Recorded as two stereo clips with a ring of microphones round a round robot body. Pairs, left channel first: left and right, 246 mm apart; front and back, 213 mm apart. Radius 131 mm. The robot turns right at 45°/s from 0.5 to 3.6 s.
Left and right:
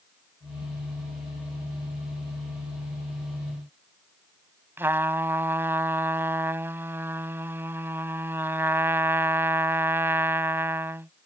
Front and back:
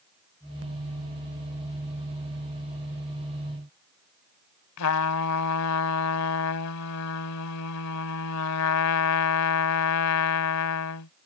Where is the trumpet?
10° right.